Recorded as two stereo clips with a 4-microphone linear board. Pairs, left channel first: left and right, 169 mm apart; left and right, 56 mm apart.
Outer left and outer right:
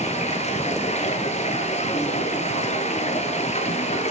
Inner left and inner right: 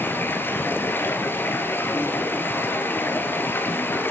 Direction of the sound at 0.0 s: 45° left (ahead or behind).